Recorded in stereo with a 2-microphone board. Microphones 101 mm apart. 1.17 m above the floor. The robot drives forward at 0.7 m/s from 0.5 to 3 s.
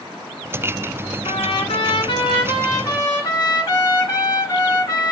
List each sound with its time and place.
1.2 s a trumpet: 75° left (ahead or behind), 1.0 m; by 5.1 s 35° left (ahead or behind), 1.8 m